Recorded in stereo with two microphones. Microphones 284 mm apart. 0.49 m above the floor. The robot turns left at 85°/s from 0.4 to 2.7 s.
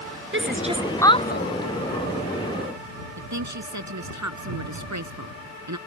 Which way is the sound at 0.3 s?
45° right (ahead or behind).